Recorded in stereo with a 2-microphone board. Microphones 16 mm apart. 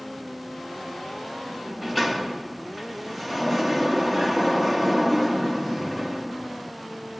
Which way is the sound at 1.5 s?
5° right (ahead or behind).